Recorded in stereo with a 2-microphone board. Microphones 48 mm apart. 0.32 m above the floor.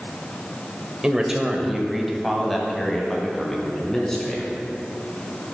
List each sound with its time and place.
1.0 s a man speaking: 15° right (ahead or behind), 0.9 m; by 4.5 s 10° left (ahead or behind), 3 m